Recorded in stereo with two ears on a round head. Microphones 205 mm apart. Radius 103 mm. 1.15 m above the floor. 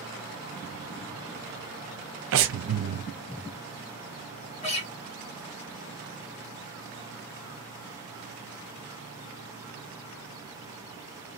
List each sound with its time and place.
2.3 s breathing: 60° right (ahead or behind), 0.6 m
4.6 s a guitar: 30° left (ahead or behind), 1.7 m